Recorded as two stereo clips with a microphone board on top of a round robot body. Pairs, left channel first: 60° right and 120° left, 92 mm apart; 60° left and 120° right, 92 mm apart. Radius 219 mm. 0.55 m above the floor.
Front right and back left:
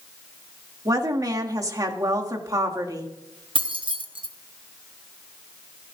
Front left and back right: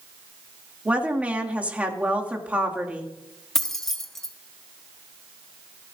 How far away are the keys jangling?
About 1.5 m.